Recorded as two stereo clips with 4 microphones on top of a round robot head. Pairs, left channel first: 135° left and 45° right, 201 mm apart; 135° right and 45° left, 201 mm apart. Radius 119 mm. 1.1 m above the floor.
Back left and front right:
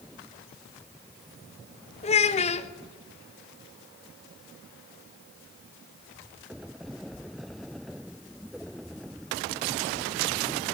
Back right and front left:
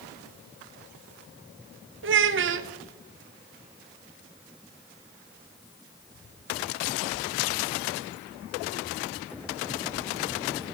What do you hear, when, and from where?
2.0 s a child speaking: 75° left, 0.6 m